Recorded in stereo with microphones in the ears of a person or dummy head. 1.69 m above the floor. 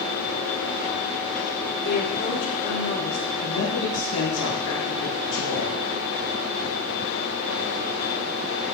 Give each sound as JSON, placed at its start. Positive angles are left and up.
{"t": 1.8, "sound": "a woman speaking", "side_deg": 55, "distance_m": 3.5}
{"t": 3.4, "sound": "a man speaking", "side_deg": 70, "distance_m": 3.0}